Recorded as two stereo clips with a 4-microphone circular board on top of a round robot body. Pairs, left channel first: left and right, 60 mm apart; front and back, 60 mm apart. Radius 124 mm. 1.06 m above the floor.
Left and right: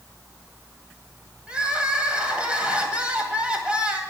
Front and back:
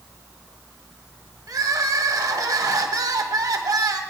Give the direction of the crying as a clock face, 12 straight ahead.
5 o'clock.